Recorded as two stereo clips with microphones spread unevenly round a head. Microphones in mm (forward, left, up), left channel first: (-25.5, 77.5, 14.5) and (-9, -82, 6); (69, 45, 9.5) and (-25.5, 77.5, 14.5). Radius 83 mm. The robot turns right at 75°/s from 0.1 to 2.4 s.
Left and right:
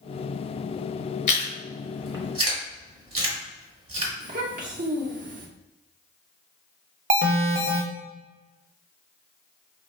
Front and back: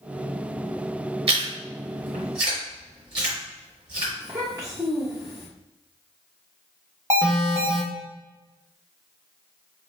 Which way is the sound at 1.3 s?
140° left.